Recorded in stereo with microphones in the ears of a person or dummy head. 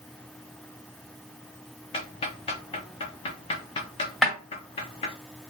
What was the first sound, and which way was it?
Ticking, 25° left (ahead or behind).